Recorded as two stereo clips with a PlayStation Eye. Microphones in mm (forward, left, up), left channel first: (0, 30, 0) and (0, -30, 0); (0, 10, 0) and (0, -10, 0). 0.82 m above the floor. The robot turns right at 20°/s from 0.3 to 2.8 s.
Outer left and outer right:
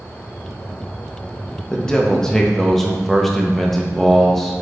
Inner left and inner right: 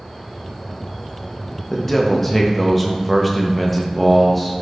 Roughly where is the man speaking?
Centre.